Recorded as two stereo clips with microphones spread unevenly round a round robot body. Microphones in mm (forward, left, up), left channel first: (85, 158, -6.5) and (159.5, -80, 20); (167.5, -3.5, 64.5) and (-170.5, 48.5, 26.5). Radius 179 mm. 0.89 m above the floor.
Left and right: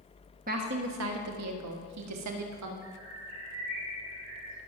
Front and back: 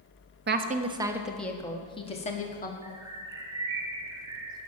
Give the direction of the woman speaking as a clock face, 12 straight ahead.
5 o'clock.